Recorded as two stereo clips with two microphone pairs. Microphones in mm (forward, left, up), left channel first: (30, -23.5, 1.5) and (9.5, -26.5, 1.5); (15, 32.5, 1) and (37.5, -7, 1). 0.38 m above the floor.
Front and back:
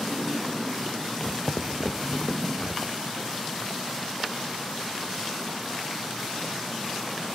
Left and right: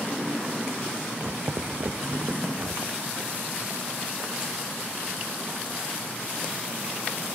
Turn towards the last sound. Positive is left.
turn(degrees=-45)